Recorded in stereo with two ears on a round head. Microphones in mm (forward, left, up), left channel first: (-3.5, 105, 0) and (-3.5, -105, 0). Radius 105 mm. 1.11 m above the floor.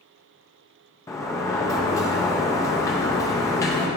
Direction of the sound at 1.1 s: 15° left (ahead or behind).